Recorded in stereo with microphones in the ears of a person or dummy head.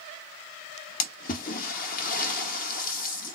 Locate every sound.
1.0 s a splash: 50° left (ahead or behind), 1.3 m